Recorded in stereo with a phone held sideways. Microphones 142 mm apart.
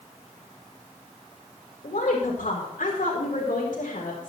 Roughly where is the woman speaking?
Left.